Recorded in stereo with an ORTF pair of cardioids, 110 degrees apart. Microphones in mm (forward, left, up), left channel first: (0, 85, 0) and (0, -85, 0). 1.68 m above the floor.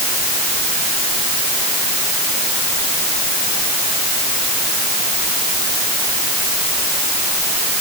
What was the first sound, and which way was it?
Only background noise.